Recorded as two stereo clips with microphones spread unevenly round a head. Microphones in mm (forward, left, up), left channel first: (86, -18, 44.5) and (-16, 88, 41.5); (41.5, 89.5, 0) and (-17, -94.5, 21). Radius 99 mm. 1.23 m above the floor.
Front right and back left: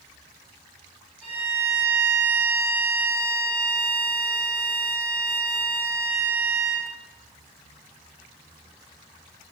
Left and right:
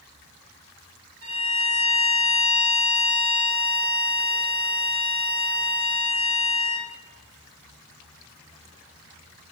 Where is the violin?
140° right, 1.7 m.